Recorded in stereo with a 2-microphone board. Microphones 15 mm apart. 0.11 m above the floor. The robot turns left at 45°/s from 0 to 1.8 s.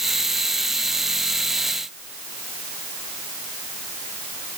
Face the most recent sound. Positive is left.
No sound to turn to.